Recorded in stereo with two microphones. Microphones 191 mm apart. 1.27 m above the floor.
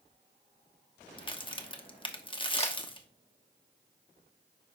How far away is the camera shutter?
About 1.4 m.